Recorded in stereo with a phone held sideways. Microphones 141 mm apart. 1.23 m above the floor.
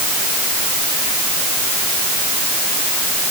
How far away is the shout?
No shout in this recording.